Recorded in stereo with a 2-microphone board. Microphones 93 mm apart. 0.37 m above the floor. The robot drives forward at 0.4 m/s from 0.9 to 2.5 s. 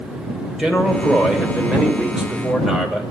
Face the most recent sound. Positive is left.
turn(degrees=-5)  # may be behind; listen again after turning